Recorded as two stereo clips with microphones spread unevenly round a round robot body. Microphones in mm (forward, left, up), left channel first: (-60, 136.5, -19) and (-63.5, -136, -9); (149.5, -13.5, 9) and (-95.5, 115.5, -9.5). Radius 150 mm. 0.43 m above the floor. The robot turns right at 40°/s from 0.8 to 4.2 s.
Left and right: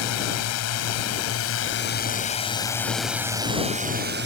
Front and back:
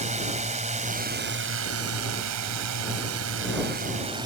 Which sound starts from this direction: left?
A drone, at 0.0 s.